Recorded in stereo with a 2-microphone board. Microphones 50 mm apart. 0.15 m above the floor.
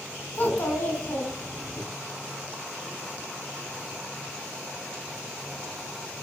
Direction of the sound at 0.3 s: 30° left (ahead or behind).